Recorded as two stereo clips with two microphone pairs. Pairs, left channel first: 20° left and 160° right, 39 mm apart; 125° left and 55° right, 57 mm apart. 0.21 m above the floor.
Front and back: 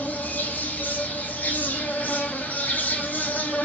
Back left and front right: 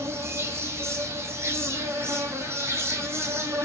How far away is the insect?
About 0.8 m.